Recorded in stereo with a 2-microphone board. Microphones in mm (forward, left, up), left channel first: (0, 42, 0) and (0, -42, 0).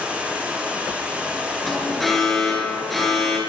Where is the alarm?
Centre (ahead or behind), 9.5 m.